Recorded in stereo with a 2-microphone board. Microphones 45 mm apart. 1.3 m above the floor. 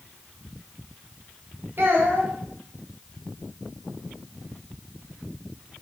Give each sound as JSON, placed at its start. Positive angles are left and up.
{"t": 1.8, "sound": "a child speaking", "side_deg": -55, "distance_m": 1.0}